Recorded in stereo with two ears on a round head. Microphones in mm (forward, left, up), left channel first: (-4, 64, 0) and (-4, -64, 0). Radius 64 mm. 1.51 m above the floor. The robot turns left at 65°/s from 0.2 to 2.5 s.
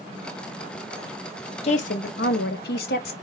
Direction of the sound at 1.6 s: 130° left.